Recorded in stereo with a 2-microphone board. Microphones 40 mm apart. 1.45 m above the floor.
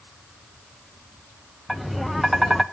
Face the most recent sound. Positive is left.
turn(degrees=0)  # may be behind; listen again after turning